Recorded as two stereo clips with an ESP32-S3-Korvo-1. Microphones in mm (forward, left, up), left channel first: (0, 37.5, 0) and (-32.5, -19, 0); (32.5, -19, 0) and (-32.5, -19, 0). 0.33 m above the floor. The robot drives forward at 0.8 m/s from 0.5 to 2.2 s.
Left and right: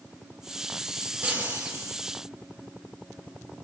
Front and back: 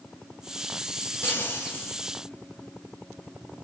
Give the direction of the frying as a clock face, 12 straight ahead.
2 o'clock.